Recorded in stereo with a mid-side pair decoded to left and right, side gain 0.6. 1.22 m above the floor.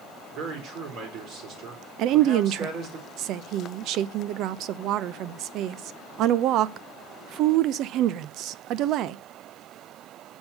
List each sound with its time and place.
0.3 s a man speaking: 65° right, 4 m
2.0 s a woman speaking: 60° right, 0.6 m